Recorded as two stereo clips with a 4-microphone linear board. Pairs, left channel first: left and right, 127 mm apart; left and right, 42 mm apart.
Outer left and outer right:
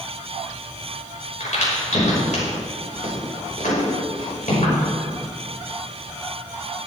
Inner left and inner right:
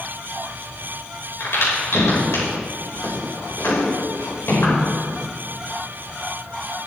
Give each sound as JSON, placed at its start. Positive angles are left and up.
{"t": 1.4, "sound": "a crack", "side_deg": 80, "distance_m": 5.5}